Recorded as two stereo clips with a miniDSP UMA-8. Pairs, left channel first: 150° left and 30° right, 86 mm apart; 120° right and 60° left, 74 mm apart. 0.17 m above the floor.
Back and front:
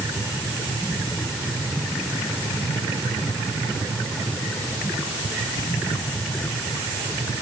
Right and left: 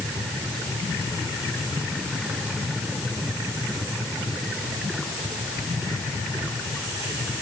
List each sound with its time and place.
Only background noise.